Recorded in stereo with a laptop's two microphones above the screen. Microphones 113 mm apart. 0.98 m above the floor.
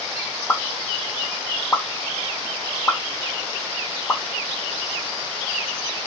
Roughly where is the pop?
Centre.